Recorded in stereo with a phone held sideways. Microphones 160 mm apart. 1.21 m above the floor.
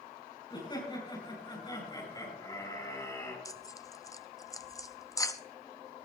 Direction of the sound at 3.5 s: 20° left (ahead or behind).